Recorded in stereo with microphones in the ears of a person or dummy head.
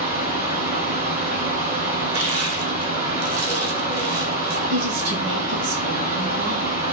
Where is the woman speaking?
50° right (ahead or behind), 0.7 m.